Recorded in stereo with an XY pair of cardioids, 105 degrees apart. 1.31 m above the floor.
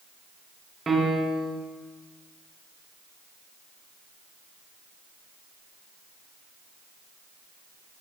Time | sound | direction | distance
0.9 | a piano | 30° right | 0.6 m